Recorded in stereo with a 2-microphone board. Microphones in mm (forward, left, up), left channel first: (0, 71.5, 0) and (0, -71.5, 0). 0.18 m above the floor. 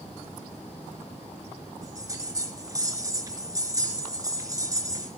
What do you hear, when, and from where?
1.8 s a bell: 25° right (ahead or behind), 3.5 m